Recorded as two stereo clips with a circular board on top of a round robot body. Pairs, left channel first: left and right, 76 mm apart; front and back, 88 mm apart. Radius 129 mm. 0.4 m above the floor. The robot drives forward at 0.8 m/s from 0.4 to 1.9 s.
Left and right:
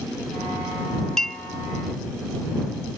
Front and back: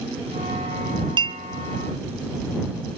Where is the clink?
175° left, 0.6 m.